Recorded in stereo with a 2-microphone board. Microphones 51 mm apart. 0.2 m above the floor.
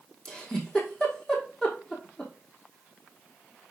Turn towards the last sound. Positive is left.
turn(degrees=15)  # may be behind; listen again after turning